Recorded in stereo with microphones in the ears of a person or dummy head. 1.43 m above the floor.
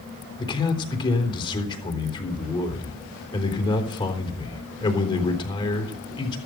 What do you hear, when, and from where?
0.4 s a man speaking: 25° left (ahead or behind), 3.5 m